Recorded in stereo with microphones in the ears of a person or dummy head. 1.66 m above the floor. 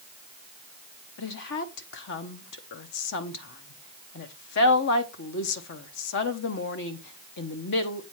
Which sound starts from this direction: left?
A woman speaking, at 1.2 s.